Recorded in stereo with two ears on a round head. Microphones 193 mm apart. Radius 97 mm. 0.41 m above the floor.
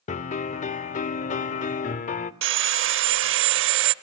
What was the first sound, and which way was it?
A piano, 35° left (ahead or behind).